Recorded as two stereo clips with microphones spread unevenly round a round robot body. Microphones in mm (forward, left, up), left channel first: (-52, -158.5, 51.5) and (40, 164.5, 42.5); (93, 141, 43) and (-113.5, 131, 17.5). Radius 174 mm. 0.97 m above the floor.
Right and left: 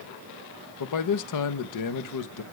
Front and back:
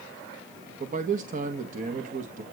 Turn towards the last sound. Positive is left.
turn(degrees=-130)